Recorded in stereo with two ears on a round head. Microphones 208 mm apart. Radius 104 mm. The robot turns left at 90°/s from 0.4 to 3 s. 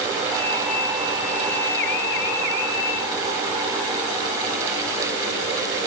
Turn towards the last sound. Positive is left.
No sound to turn to.